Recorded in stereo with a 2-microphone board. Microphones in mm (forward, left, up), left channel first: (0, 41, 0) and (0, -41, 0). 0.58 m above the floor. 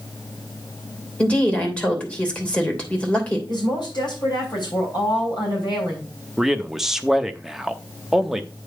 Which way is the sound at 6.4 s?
5° right (ahead or behind).